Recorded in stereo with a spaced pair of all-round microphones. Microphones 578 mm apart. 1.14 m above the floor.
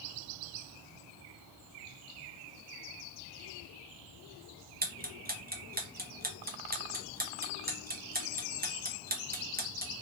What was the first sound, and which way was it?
Ticking, 15° right (ahead or behind).